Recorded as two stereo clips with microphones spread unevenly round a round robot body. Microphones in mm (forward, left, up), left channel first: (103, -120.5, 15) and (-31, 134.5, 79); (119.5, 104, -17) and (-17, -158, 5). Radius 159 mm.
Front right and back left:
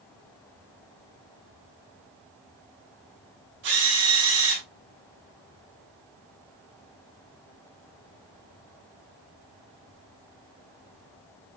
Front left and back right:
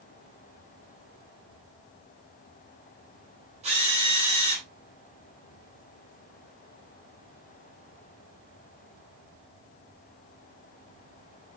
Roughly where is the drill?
Behind.